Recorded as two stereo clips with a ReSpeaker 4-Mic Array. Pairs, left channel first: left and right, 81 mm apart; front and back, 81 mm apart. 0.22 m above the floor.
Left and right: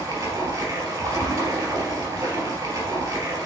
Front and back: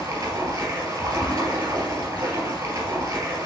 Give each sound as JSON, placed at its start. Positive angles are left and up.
{"t": 0.0, "sound": "running water", "azimuth_deg": -140, "distance_m": 2.5}